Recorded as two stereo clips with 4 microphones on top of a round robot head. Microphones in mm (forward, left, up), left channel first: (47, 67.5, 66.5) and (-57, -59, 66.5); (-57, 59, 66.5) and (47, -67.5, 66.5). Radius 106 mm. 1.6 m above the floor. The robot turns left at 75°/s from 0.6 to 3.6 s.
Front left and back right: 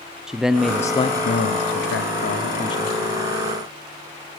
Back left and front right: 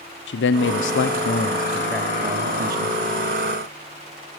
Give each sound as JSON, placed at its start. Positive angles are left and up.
{"t": 0.3, "sound": "a man speaking", "azimuth_deg": 145, "distance_m": 0.8}